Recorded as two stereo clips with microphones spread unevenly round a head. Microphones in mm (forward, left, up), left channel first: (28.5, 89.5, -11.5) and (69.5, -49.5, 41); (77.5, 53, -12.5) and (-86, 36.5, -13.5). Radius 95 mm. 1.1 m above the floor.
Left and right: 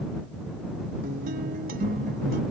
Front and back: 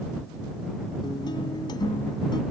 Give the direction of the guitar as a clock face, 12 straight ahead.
2 o'clock.